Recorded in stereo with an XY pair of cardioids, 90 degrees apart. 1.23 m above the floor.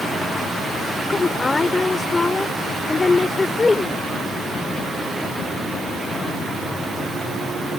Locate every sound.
1.1 s a woman speaking: 25° left